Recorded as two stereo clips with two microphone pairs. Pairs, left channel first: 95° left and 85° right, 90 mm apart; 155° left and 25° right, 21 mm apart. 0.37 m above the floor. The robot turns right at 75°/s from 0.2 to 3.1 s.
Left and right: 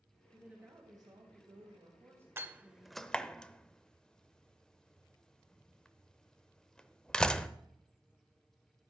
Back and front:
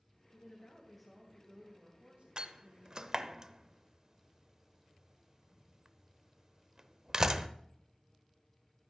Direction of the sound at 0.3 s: 170° right.